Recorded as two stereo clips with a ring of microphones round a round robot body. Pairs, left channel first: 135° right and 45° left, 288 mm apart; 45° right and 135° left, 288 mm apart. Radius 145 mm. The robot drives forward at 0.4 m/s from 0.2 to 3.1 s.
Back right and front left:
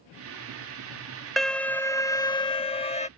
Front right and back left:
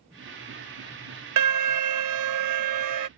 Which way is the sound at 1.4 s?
135° left.